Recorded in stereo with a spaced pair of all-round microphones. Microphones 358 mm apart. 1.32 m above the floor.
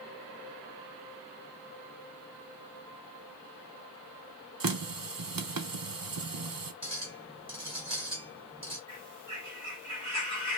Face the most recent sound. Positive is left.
turn(degrees=-50)  # may be behind; listen again after turning